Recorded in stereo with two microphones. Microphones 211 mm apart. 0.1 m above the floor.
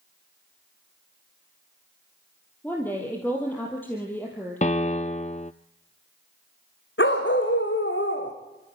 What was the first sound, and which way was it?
A woman speaking, 10° left (ahead or behind).